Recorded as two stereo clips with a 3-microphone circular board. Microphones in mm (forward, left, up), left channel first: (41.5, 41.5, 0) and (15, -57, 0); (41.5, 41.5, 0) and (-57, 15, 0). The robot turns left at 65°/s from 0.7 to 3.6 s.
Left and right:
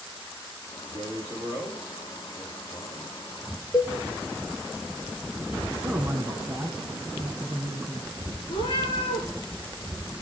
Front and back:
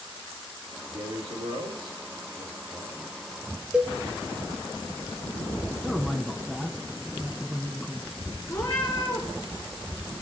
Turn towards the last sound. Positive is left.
turn(degrees=70)